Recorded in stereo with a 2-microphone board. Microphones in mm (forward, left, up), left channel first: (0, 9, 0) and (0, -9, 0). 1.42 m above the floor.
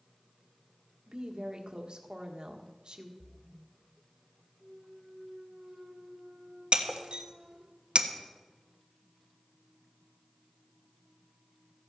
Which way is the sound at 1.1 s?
50° right (ahead or behind).